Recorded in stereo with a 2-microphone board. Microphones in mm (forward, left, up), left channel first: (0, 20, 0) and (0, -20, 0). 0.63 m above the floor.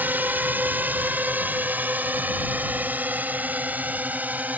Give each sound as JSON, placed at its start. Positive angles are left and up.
{"t": 0.0, "sound": "a drone", "side_deg": -60}